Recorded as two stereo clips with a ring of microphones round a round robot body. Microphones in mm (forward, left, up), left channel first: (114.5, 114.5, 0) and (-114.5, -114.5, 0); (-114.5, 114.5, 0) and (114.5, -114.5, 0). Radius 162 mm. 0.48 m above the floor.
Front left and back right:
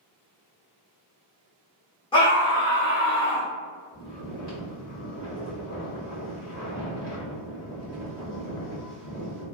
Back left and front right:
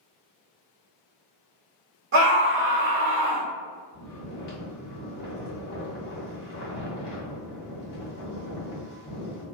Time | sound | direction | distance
2.1 | a scream | 25° right | 1.3 m
3.9 | snoring | 85° left | 1.9 m